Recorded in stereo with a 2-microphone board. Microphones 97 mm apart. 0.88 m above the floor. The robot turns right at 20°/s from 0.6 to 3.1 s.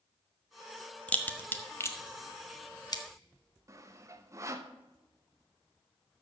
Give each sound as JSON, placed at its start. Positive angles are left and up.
{"t": 1.1, "sound": "a crack", "side_deg": 15, "distance_m": 0.9}
{"t": 3.7, "sound": "sawing", "side_deg": -30, "distance_m": 0.8}